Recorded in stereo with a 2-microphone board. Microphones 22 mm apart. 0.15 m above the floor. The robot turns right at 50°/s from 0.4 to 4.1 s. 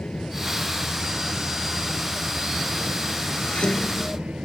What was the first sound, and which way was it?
An aircraft, 85° left.